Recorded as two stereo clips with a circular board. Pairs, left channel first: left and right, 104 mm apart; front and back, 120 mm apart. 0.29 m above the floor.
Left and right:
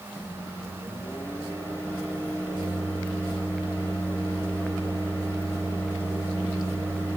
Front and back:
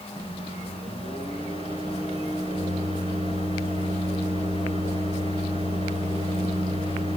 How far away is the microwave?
About 3 m.